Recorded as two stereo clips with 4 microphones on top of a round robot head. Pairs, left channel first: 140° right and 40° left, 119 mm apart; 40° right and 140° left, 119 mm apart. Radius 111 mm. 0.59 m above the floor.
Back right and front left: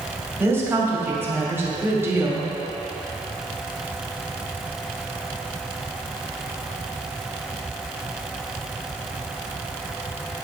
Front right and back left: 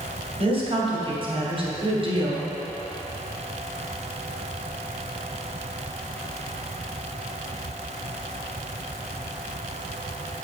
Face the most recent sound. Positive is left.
turn(degrees=110)